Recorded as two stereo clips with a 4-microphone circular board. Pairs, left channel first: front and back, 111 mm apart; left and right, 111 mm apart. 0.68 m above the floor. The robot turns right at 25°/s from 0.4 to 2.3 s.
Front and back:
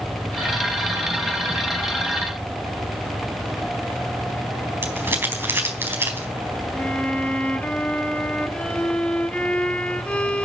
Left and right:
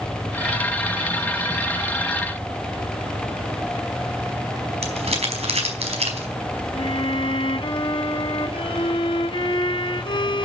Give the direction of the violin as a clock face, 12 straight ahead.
9 o'clock.